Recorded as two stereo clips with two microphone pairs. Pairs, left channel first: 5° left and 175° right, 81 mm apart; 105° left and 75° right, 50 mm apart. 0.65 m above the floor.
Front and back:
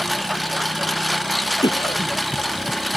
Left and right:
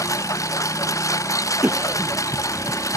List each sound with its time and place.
0.0 s a lawn mower: 95° left
1.6 s a cough: 20° right